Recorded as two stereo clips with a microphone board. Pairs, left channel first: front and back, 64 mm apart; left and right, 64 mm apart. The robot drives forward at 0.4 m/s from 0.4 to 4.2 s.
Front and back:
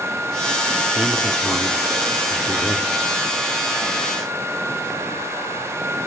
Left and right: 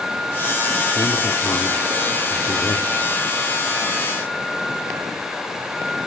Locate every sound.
0.9 s a man speaking: 105° left, 1.7 m; by 2.9 s 130° left, 2 m